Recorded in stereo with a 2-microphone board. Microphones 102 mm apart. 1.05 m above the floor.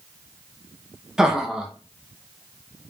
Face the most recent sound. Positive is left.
turn(degrees=-5)  # may be behind; listen again after turning